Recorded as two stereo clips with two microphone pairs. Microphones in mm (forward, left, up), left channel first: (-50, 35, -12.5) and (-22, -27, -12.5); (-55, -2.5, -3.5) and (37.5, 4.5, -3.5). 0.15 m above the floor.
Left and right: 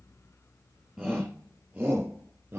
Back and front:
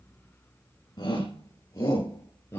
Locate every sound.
1.0 s a shout: 145° right, 3 m; by 2.6 s 120° right, 3.5 m